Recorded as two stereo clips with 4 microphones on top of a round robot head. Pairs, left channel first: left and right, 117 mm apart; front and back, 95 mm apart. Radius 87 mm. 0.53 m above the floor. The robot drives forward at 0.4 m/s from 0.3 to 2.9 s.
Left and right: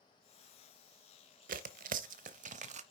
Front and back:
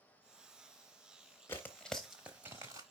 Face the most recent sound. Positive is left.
turn(degrees=-120)